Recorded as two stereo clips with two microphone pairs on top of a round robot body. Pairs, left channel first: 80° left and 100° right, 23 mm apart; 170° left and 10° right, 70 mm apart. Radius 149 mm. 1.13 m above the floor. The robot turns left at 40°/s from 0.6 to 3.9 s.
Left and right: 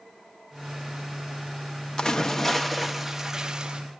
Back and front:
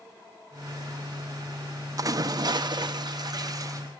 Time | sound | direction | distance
2.0 | a splash | 25° left | 0.9 m